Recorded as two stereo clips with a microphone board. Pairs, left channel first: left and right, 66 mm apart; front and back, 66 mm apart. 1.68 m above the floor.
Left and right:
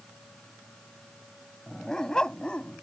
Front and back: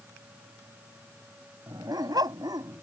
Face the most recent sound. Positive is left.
turn(degrees=165)